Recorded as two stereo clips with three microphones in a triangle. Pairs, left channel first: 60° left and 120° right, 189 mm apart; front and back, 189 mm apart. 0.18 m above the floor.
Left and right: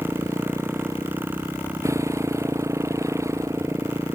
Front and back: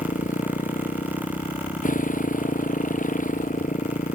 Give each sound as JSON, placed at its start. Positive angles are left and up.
{"t": 0.0, "sound": "a motorcycle", "azimuth_deg": -45}